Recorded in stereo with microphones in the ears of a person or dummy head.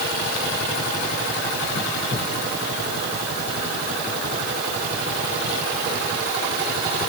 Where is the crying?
No crying in this recording.